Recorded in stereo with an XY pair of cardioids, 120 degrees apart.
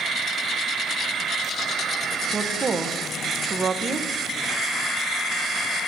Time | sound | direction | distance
2.3 | a woman speaking | 30° right | 0.9 m